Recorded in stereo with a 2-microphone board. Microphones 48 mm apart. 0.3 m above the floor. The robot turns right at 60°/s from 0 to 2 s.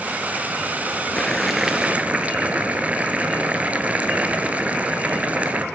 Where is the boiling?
155° left, 0.9 m; by 5.6 s 150° right, 0.9 m.